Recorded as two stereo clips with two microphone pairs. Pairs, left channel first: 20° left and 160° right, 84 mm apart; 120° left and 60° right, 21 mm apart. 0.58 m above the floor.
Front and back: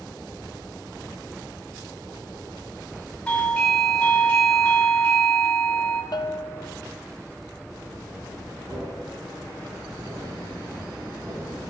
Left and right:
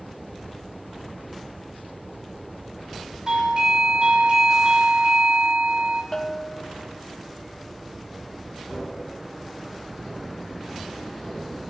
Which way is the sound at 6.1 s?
50° left.